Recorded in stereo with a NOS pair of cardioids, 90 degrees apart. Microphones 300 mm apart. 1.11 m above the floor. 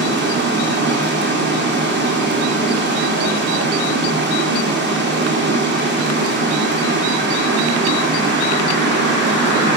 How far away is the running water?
About 0.9 m.